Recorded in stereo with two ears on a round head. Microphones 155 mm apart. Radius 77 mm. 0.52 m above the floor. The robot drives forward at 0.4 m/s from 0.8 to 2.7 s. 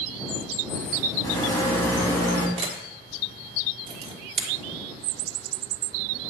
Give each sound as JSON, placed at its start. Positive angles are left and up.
{"t": 1.2, "sound": "a rattle", "side_deg": 25, "distance_m": 1.9}
{"t": 2.6, "sound": "a camera shutter", "side_deg": -35, "distance_m": 1.5}